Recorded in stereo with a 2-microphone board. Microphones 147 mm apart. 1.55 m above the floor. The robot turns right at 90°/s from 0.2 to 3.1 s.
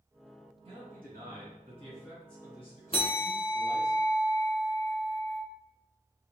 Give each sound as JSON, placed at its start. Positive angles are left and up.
{"t": 0.7, "sound": "a man speaking", "azimuth_deg": -140, "distance_m": 1.8}
{"t": 2.9, "sound": "a bell", "side_deg": 35, "distance_m": 0.7}